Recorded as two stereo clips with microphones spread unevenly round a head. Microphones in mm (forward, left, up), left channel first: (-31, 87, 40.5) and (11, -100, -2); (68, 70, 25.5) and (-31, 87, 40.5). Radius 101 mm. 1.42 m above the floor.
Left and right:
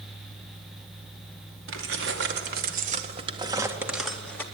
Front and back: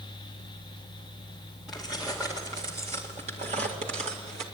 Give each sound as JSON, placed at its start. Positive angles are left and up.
{"t": 1.7, "sound": "keys jangling", "azimuth_deg": -100, "distance_m": 2.0}